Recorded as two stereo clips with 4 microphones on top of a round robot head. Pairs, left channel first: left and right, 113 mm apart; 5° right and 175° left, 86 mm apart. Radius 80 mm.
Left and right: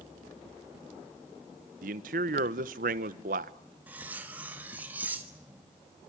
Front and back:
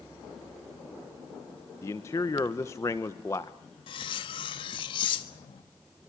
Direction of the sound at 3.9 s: 10° right.